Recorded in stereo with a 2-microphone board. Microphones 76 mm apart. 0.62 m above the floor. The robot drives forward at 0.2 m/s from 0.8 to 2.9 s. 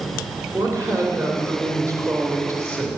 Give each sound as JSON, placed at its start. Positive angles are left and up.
{"t": 0.5, "sound": "a woman speaking", "side_deg": -45, "distance_m": 3.0}